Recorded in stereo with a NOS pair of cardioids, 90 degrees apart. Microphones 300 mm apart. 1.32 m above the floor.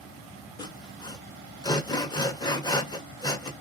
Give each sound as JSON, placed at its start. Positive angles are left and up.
{"t": 0.6, "sound": "sawing", "azimuth_deg": 15, "distance_m": 0.9}